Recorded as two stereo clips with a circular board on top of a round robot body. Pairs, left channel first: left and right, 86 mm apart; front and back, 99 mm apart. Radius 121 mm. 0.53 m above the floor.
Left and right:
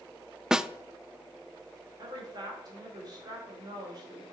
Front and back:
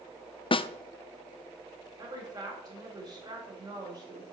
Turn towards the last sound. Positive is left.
turn(degrees=-130)